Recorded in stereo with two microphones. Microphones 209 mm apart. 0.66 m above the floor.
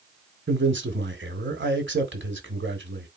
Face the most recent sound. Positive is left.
turn(degrees=-60)  # may be behind; listen again after turning